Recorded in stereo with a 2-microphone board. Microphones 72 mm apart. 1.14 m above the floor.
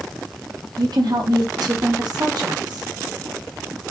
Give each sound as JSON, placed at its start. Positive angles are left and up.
{"t": 0.8, "sound": "a woman speaking", "side_deg": -70, "distance_m": 2.5}